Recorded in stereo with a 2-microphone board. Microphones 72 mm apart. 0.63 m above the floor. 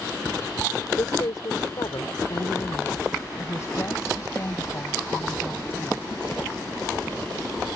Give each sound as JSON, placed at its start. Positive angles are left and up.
{"t": 1.0, "sound": "a woman speaking", "side_deg": 65}